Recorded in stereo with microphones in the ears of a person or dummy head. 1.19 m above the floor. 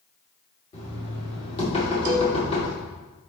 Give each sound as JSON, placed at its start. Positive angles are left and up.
{"t": 0.7, "sound": "knocking", "side_deg": 35, "distance_m": 2.5}
{"t": 2.0, "sound": "a cowbell", "side_deg": -50, "distance_m": 1.1}